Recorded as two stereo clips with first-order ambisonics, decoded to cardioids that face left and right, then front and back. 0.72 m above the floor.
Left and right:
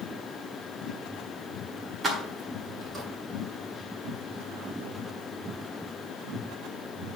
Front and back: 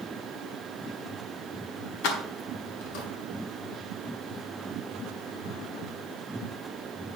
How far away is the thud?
I don't hear a thud.